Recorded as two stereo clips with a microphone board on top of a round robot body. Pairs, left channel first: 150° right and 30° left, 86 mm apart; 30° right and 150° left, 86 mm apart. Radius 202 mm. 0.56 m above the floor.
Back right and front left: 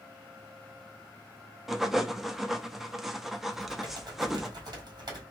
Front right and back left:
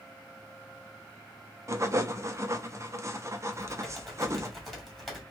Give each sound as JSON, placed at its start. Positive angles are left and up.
{"t": 1.7, "sound": "writing", "azimuth_deg": 115, "distance_m": 0.8}
{"t": 3.5, "sound": "typing on a keyboard", "azimuth_deg": 60, "distance_m": 1.8}